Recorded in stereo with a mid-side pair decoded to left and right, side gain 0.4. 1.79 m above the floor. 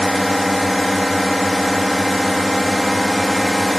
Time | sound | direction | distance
0.0 | a drone | 5° left | ?